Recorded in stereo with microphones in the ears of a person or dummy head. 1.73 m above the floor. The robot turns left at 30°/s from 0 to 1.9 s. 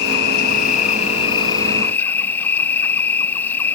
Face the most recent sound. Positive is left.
turn(degrees=15)